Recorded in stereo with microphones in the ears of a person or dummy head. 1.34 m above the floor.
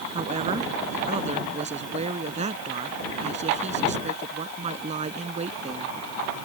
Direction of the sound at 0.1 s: 40° right (ahead or behind).